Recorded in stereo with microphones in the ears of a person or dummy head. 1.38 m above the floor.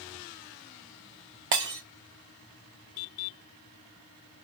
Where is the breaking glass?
20° right (ahead or behind), 0.5 m.